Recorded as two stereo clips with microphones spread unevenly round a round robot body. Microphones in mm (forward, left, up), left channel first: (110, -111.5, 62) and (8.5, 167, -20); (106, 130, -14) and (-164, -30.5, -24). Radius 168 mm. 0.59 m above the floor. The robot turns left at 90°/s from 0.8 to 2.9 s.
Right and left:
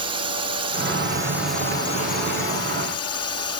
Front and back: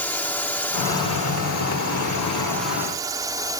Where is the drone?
110° left; by 3.6 s 80° right.